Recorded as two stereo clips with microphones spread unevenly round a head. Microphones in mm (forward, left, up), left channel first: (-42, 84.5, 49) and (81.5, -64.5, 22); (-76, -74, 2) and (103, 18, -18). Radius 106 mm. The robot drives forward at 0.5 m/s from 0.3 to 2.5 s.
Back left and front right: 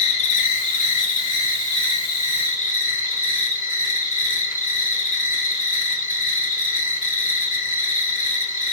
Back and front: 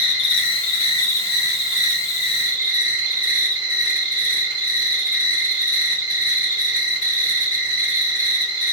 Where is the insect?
Straight behind, 0.8 m.